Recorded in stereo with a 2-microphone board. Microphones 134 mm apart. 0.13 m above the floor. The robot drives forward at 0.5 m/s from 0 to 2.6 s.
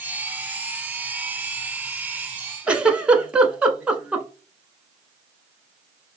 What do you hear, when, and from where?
2.7 s a giggle: 10° right (ahead or behind), 0.7 m